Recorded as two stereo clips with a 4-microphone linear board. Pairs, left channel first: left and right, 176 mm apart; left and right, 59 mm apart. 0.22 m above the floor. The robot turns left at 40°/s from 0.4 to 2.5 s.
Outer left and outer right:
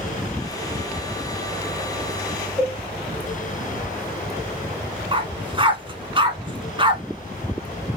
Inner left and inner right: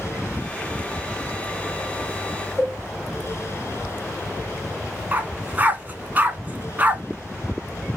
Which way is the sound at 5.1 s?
30° right (ahead or behind).